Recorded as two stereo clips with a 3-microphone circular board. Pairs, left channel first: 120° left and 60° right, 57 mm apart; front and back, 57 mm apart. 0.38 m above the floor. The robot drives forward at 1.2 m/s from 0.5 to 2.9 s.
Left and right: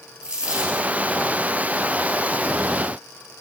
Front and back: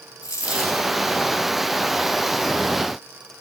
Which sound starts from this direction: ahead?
A dropped coin, at 0.2 s.